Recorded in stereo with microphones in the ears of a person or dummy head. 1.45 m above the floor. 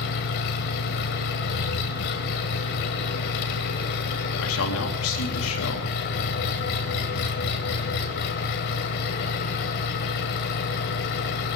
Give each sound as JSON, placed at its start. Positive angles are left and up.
{"t": 0.0, "sound": "an engine running", "side_deg": 50, "distance_m": 1.8}
{"t": 4.4, "sound": "a man speaking", "side_deg": 75, "distance_m": 3.5}